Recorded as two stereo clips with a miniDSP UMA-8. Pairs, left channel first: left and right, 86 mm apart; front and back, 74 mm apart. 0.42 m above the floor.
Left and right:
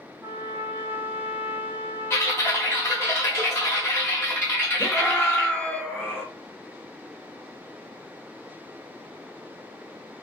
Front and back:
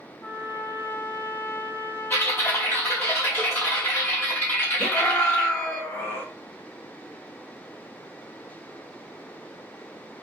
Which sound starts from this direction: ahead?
A scream, at 4.8 s.